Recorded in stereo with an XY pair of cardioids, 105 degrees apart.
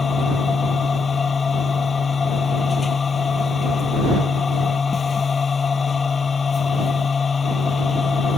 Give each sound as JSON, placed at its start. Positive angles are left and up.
{"t": 0.0, "sound": "a machine running", "azimuth_deg": 40}